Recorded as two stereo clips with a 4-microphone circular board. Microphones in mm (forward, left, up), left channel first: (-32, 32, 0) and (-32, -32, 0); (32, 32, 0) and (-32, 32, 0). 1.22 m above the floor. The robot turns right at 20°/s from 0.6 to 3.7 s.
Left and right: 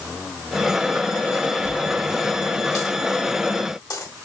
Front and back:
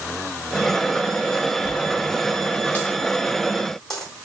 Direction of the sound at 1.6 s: 40° left.